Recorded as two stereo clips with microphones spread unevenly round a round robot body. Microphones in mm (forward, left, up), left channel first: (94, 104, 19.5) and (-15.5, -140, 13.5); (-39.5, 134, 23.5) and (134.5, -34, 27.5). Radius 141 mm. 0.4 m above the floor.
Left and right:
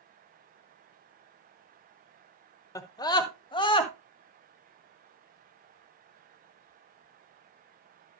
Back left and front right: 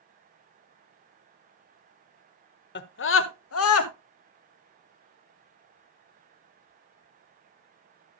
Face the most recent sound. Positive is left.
turn(degrees=140)